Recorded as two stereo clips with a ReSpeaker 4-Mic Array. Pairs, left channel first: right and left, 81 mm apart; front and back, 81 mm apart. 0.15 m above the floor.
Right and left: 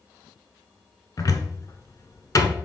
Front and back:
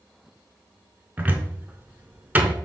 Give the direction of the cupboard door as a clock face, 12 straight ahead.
4 o'clock.